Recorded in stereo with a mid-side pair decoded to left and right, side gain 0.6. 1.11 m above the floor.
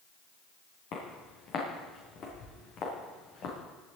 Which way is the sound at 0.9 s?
60° left.